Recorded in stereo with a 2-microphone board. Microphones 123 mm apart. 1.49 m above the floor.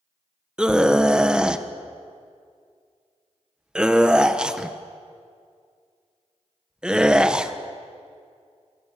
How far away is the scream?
About 1.4 m.